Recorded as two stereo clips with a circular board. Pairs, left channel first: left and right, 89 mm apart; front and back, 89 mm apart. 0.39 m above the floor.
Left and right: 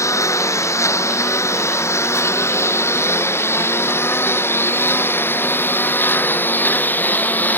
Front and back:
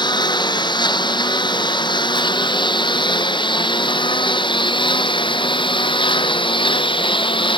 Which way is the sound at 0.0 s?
35° left.